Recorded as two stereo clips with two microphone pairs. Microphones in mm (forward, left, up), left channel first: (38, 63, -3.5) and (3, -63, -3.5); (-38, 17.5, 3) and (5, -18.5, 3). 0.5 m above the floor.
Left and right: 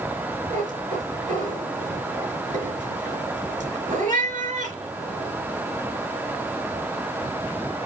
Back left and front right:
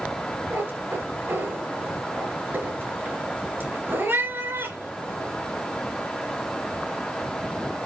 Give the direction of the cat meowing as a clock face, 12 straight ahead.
3 o'clock.